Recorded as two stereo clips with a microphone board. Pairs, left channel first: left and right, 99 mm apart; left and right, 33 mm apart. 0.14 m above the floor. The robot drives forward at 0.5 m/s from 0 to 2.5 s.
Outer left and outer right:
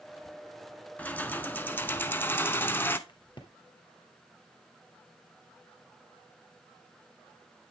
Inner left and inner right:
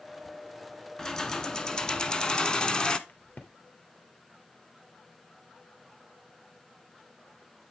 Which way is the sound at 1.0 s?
15° left (ahead or behind).